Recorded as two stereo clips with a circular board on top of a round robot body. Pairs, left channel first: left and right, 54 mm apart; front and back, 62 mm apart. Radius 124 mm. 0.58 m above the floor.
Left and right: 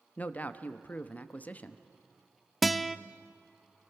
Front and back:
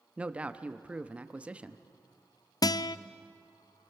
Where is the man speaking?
125° left, 1.2 m.